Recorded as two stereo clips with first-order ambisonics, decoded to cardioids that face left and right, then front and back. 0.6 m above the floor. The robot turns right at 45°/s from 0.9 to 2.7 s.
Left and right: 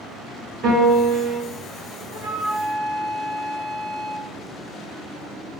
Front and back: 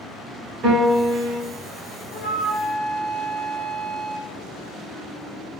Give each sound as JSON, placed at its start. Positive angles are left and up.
{"t": 0.6, "sound": "a piano", "azimuth_deg": -135, "distance_m": 1.4}
{"t": 2.1, "sound": "a flute", "azimuth_deg": -15, "distance_m": 1.4}